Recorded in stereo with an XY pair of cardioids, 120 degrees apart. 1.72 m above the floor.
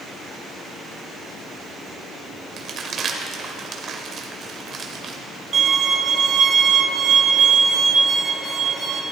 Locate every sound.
2.6 s crumpling: 45° right, 1.3 m
5.5 s a violin: 35° right, 1.3 m